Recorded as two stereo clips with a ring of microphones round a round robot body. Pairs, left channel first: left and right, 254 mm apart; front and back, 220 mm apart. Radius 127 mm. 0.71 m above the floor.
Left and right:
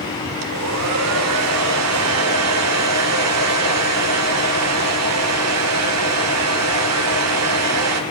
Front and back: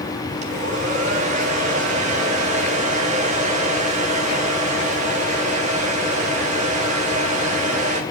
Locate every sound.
0.4 s a hair dryer: 115° right, 1.7 m